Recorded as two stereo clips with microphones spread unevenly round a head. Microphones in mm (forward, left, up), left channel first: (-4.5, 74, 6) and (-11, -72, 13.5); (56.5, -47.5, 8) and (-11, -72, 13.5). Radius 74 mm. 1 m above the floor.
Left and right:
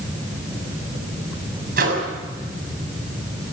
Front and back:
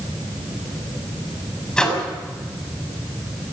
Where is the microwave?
60° right, 6 m.